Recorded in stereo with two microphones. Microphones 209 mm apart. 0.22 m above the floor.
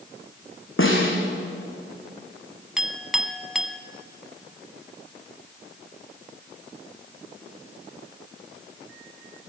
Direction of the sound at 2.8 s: Centre (ahead or behind).